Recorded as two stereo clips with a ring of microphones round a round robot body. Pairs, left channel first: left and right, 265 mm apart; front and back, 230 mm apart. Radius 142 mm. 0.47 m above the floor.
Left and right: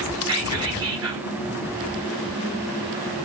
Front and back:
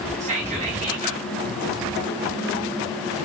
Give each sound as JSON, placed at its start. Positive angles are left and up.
{"t": 0.2, "sound": "whispering", "azimuth_deg": -155, "distance_m": 1.2}